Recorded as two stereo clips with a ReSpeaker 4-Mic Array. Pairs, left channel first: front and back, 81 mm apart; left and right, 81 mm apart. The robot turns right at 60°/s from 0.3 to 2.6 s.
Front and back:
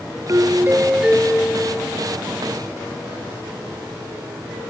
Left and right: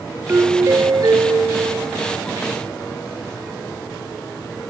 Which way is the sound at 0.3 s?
145° right.